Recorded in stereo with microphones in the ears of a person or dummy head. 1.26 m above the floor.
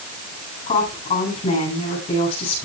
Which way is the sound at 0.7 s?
35° left (ahead or behind).